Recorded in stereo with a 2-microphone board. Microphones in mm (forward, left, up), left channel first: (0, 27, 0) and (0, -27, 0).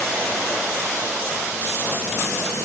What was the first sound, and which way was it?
Only background noise.